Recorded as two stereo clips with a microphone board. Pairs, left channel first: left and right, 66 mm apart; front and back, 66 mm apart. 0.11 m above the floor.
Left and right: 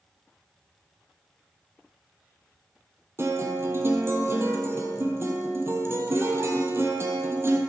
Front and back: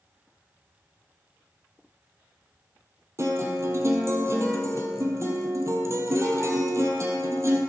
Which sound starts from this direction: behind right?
A guitar, at 3.2 s.